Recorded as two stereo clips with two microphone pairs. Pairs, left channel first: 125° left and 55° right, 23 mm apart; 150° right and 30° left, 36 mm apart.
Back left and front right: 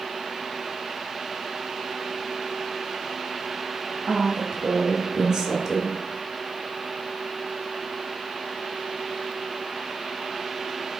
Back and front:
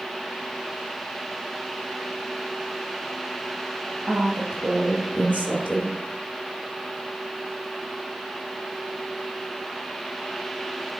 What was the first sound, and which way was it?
A woman speaking, straight ahead.